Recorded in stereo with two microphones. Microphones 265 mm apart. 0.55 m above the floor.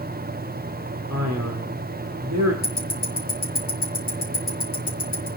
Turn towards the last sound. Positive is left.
turn(degrees=45)  # may be behind; listen again after turning